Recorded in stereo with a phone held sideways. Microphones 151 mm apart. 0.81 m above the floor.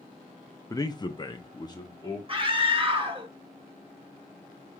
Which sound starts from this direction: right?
A scream, at 2.3 s.